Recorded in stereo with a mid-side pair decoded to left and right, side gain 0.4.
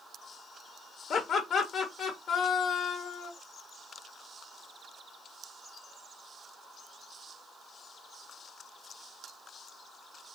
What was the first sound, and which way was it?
Laughter, 60° left.